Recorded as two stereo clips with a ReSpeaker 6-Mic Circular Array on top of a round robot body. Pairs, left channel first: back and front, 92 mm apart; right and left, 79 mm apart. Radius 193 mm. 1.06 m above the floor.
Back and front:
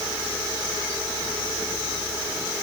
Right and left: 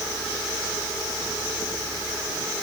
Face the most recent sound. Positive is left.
No sound to turn to.